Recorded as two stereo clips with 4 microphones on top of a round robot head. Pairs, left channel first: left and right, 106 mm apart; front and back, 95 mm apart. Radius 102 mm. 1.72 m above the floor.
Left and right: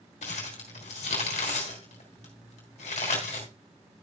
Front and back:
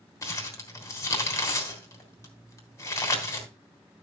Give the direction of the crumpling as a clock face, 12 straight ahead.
10 o'clock.